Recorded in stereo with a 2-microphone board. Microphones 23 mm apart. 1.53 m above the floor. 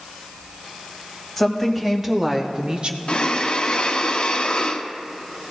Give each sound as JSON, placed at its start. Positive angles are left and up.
{"t": 1.4, "sound": "a woman speaking", "side_deg": 0, "distance_m": 2.0}
{"t": 3.1, "sound": "breathing", "side_deg": 45, "distance_m": 0.7}